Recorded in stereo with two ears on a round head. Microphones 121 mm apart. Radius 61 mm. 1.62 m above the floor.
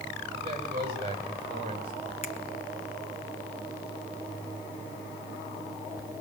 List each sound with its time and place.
0.3 s a man speaking: 45° right (ahead or behind), 8 m; by 1.9 s 40° right (ahead or behind), 7.5 m
2.2 s a finger snap: 50° left (ahead or behind), 1.8 m